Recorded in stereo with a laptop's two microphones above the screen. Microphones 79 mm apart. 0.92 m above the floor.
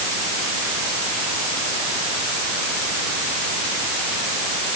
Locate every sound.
Only background noise.